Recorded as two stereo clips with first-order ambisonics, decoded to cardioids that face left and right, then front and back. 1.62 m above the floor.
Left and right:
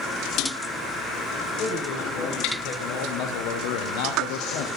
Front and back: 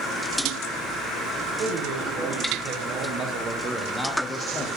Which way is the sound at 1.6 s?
145° left.